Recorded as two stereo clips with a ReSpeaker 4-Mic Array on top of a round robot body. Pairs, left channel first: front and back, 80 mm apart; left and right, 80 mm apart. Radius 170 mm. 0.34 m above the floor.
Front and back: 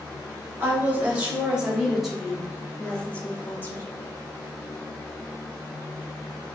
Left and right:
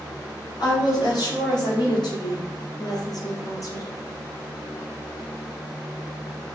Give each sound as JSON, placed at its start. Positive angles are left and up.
{"t": 0.6, "sound": "a woman speaking", "azimuth_deg": 115, "distance_m": 2.0}